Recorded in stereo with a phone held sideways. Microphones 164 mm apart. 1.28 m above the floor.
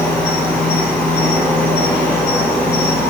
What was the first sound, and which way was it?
An insect, 5° left (ahead or behind).